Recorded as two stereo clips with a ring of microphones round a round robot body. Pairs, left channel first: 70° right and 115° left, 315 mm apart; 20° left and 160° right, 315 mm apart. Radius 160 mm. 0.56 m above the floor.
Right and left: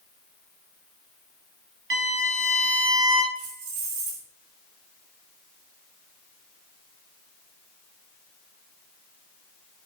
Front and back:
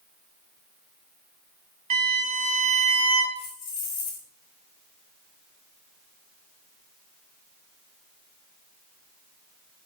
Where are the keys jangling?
85° left, 1.6 m.